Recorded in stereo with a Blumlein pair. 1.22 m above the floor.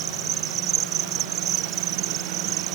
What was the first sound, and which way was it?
An insect, 35° right.